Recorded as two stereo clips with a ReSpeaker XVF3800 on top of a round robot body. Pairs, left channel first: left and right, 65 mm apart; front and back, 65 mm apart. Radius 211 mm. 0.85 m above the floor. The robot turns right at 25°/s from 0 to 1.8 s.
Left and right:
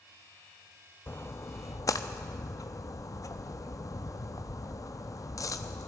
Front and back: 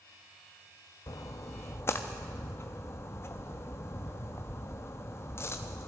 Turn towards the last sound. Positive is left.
turn(degrees=50)